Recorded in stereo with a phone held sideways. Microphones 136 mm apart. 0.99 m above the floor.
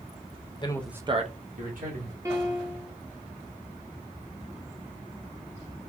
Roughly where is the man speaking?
Left.